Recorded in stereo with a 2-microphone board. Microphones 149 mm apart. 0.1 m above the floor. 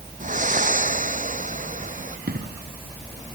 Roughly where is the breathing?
Right.